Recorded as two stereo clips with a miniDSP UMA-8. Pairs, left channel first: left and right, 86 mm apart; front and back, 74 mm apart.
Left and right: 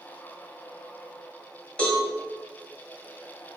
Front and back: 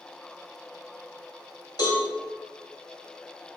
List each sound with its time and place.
1.8 s a cowbell: 10° left, 1.9 m